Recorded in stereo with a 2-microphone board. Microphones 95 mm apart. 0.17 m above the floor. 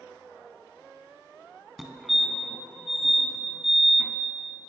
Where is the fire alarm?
Centre (ahead or behind), 2.5 m.